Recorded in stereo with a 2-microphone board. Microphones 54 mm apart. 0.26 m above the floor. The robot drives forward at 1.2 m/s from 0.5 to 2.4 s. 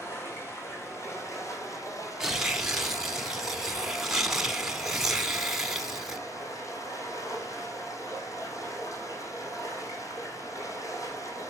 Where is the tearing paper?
10° right (ahead or behind), 0.9 m; by 6.2 s 5° right (ahead or behind), 1.1 m.